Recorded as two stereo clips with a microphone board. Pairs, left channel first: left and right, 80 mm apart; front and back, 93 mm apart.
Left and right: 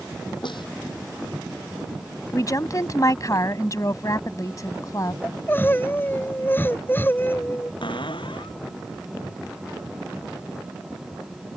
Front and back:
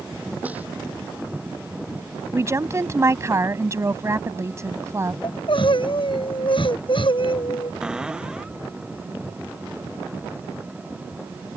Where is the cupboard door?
100° left.